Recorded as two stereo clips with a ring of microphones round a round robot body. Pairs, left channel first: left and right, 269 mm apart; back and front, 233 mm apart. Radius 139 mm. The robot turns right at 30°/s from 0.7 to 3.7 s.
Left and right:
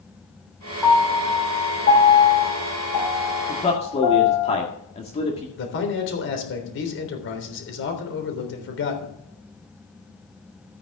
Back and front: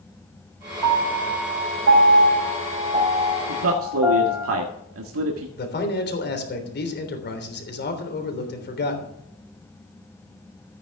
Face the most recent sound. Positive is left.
turn(degrees=135)